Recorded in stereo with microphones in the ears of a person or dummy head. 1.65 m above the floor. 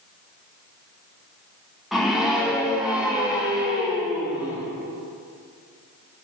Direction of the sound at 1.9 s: 5° left (ahead or behind).